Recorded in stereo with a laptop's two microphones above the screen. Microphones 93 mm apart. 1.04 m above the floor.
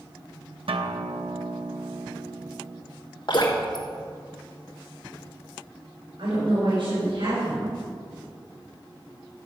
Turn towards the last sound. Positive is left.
turn(degrees=-80)